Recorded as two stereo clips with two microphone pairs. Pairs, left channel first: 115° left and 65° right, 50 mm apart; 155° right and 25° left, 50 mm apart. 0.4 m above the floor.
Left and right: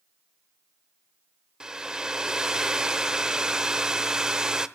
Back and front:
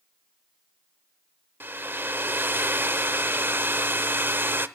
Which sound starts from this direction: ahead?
A hair dryer, at 1.6 s.